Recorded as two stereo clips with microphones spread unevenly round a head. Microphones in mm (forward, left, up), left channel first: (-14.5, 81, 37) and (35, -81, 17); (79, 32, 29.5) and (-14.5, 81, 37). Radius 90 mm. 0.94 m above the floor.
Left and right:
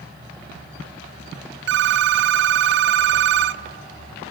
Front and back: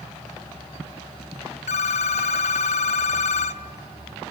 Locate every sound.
1.7 s a phone ringing: 60° right, 0.6 m